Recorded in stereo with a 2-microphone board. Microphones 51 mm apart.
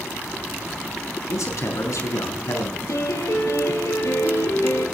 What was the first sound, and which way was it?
A man speaking, 80° left.